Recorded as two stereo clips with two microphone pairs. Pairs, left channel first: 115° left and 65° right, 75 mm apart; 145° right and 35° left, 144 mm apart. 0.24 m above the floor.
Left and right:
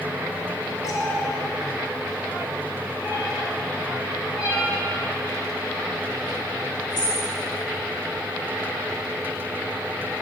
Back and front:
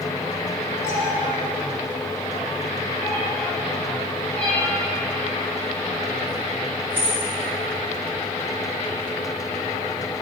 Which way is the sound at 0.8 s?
145° left.